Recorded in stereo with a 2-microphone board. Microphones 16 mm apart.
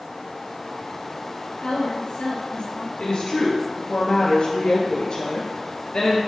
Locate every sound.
1.6 s a woman speaking: 65° left (ahead or behind), 4.5 m
3.0 s a woman speaking: 65° left (ahead or behind), 3.5 m